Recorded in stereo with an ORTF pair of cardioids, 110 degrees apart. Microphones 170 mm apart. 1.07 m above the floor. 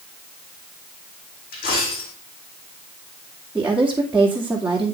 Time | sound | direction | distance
1.5 | a dropped coin | 65° left | 5.5 m
3.5 | a woman speaking | 10° right | 2.5 m